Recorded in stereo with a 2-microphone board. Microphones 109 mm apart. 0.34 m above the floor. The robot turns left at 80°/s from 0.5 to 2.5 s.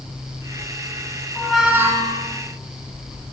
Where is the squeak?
15° left, 1.4 m; by 2.3 s 60° right, 1.4 m.